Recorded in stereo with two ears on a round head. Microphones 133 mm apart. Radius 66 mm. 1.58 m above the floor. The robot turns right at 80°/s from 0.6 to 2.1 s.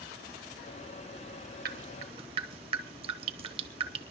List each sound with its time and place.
1.6 s dripping: 70° right (ahead or behind), 1.2 m; by 4.1 s 40° right (ahead or behind), 1.2 m